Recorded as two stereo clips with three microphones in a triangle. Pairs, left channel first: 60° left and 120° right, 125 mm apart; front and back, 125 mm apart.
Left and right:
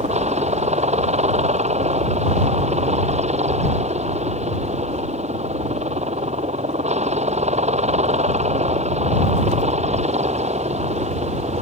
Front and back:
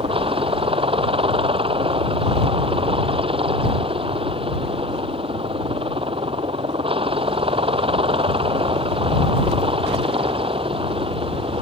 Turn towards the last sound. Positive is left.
turn(degrees=-140)